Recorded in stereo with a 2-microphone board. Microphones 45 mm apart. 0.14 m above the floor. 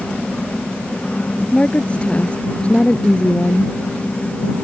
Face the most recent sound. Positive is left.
turn(degrees=25)  # may be behind; listen again after turning